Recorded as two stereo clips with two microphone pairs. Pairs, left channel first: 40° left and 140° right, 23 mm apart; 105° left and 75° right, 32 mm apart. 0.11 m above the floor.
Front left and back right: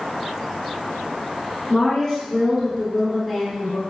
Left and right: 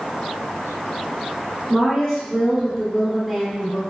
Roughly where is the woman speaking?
Ahead.